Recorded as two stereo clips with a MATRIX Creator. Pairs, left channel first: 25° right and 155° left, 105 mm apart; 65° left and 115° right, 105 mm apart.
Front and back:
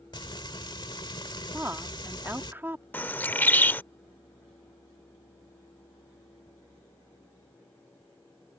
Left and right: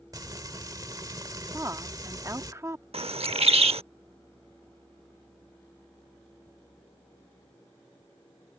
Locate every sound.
0.1 s frying: 60° right
1.5 s a woman speaking: 150° right
2.9 s a bird: 95° right